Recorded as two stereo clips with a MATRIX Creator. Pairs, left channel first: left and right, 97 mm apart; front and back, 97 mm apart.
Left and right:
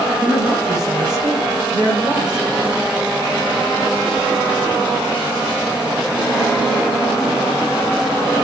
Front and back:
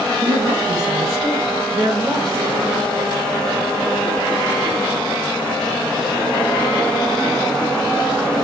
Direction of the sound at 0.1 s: 140° right.